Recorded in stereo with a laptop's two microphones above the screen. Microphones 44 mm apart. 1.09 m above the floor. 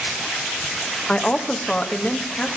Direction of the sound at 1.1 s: 25° left (ahead or behind).